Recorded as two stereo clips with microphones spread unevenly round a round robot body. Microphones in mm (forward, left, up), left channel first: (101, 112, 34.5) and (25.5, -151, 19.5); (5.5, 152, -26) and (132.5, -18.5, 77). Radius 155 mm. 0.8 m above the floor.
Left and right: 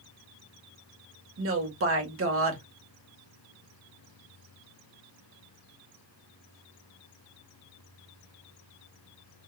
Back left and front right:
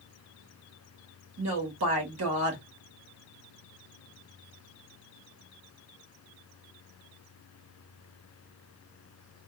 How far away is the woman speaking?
About 1.3 m.